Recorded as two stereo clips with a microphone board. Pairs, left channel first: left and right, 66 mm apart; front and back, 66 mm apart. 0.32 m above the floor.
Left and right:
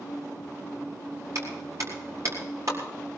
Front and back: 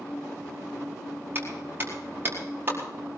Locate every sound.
1.4 s a clap: 125° right, 5 m